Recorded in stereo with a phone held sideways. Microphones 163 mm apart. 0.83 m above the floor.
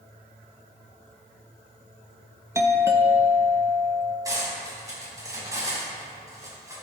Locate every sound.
2.5 s a doorbell: 15° right (ahead or behind), 1.0 m
4.2 s cutlery clinking: 20° right (ahead or behind), 4 m